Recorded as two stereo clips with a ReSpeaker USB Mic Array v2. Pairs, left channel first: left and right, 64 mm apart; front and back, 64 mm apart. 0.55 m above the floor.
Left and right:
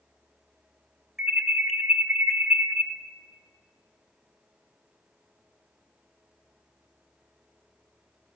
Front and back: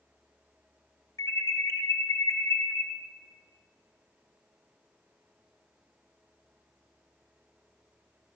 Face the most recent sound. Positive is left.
turn(degrees=-5)